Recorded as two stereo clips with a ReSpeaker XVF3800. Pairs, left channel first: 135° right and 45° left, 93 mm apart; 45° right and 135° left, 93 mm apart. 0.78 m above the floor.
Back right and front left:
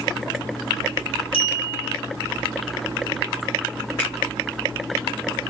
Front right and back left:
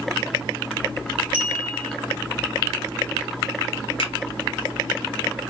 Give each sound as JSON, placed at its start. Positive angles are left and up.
{"t": 1.3, "sound": "a clink", "azimuth_deg": -150, "distance_m": 1.7}
{"t": 4.0, "sound": "a finger snap", "azimuth_deg": -60, "distance_m": 2.5}